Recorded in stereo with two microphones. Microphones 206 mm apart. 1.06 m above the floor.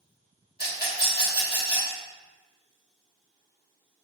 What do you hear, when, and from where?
0.6 s a rattle: 50° left (ahead or behind), 1.3 m